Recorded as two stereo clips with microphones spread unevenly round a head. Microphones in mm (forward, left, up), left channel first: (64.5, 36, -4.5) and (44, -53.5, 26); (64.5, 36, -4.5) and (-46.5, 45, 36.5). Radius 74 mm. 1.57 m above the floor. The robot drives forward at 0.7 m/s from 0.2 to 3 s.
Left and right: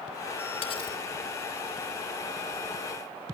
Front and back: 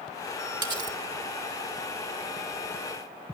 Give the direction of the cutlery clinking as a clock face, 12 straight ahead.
8 o'clock.